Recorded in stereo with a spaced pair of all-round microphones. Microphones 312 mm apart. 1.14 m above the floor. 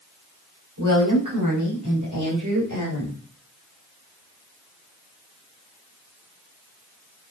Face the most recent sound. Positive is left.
turn(degrees=-65)  # may be behind; listen again after turning